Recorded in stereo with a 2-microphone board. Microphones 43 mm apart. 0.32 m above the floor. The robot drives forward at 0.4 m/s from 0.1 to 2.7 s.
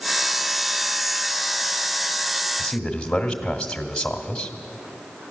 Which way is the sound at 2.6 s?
20° left (ahead or behind).